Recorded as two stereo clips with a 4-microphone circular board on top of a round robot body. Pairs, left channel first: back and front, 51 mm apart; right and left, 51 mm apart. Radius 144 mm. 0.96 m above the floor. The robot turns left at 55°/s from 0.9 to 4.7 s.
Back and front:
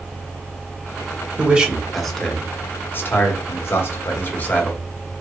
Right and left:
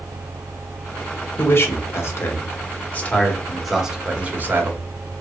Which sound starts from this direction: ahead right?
A man speaking, at 1.4 s.